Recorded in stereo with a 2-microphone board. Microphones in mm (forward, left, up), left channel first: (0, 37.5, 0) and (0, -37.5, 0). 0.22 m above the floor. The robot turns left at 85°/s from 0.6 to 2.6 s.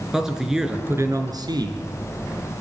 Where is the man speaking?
10° right, 3.5 m; by 1.9 s 115° right, 3.5 m.